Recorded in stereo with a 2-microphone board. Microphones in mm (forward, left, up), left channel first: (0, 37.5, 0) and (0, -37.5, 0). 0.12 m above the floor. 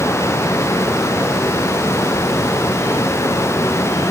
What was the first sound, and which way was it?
Only background noise.